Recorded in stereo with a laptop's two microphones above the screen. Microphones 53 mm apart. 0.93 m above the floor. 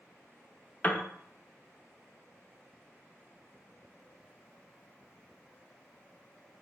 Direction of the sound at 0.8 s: 30° left (ahead or behind).